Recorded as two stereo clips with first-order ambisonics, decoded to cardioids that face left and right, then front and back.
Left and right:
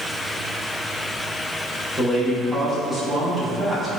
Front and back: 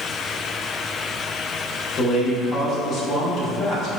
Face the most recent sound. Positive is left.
turn(degrees=10)